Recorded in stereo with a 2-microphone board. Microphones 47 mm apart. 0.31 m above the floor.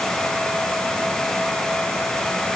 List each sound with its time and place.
Only background noise.